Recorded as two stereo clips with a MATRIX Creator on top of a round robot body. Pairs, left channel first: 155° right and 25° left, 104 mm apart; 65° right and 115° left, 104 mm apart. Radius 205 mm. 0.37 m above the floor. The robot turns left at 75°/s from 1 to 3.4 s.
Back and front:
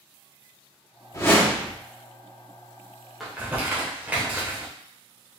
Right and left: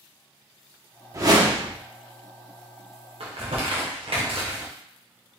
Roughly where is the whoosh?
Behind left.